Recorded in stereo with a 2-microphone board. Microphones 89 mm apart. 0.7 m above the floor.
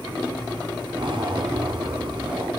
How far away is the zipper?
About 0.6 m.